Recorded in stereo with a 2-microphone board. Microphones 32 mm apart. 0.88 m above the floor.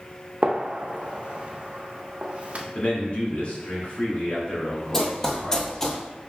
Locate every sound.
0.4 s a gunshot: 45° right (ahead or behind), 0.5 m
2.8 s a man speaking: 50° left (ahead or behind), 1.7 m
4.9 s running footsteps: 10° left (ahead or behind), 1.2 m; by 6.0 s 20° left (ahead or behind), 1.1 m